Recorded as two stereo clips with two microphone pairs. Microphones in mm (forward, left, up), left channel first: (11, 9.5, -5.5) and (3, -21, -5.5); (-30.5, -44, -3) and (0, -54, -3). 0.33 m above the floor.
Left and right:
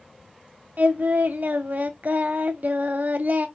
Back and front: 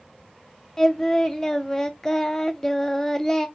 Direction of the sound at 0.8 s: 125° right.